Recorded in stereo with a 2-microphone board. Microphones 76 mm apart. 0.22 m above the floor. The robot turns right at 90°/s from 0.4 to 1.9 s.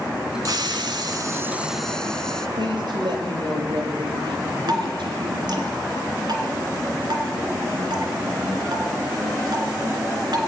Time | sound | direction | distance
0.5 | a hiss | 120° right | 0.7 m
2.6 | a woman speaking | 75° right (ahead or behind) | 5.5 m
4.7 | dripping | 65° right (ahead or behind) | 2.5 m